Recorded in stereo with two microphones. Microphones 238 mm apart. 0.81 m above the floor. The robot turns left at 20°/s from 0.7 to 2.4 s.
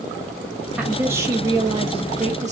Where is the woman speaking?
5° right, 1.1 m; by 2.5 s 40° right, 1.1 m.